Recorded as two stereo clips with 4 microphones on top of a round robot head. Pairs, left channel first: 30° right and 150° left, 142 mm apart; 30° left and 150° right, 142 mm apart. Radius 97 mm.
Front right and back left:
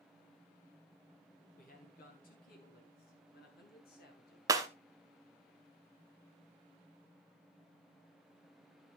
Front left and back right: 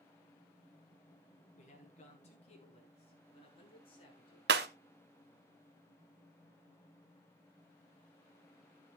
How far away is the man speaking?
About 5 m.